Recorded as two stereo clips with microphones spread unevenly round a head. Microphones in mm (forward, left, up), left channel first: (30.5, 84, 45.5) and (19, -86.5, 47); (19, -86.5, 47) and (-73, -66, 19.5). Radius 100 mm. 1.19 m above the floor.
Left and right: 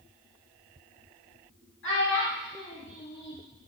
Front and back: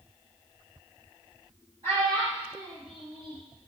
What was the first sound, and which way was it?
A child speaking, 105° left.